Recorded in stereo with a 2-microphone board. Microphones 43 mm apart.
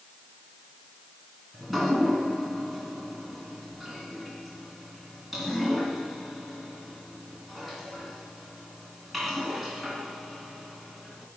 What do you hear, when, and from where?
1.5 s dripping: 5° right (ahead or behind), 2 m